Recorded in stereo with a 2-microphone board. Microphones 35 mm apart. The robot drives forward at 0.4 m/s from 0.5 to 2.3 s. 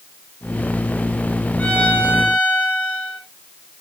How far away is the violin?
About 5 m.